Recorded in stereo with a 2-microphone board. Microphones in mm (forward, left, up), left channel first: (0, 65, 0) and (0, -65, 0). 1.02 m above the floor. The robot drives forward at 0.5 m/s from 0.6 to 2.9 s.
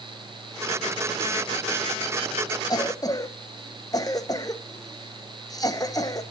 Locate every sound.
2.7 s a cough: 30° left (ahead or behind), 0.7 m